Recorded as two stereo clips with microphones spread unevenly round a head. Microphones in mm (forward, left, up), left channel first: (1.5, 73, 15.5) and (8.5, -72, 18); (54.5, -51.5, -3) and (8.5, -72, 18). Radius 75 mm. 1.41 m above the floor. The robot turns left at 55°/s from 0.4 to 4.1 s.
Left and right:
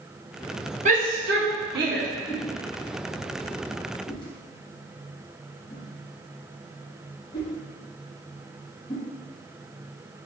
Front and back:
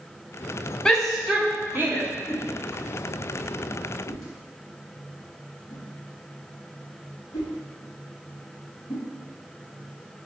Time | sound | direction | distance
0.8 | a shout | 45° right | 1.3 m
2.3 | a whoosh | 140° left | 1.1 m